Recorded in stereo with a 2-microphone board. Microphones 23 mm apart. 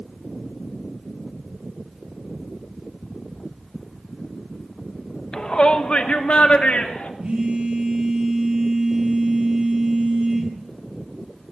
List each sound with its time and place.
5.3 s a shout: 35° left (ahead or behind), 0.9 m; by 7.1 s 75° left (ahead or behind), 3 m
7.2 s a phone buzzing: 60° right (ahead or behind), 8.5 m